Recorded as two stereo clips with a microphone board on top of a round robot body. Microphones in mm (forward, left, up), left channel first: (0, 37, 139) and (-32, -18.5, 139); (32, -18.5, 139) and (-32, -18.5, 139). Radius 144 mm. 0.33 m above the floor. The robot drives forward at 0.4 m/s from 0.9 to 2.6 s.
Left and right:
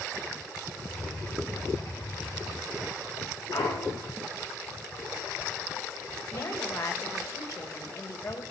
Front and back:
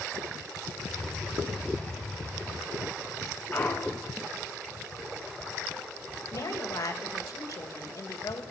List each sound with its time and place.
3.5 s a clunk: 65° left, 3.5 m
6.3 s a woman speaking: 25° left, 2 m